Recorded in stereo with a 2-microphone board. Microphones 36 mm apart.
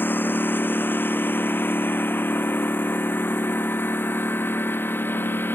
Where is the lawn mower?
75° left (ahead or behind); by 5.5 s 80° left.